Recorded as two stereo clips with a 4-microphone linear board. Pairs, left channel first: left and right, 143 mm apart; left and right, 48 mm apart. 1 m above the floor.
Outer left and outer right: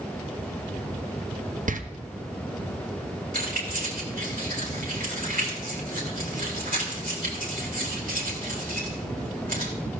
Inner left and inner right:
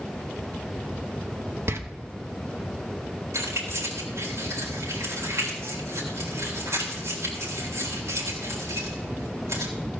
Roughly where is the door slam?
Right.